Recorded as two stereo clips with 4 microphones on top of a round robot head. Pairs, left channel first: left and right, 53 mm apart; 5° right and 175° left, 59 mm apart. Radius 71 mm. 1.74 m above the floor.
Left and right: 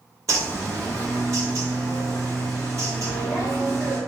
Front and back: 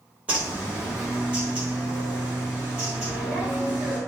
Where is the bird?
110° right, 1.0 m.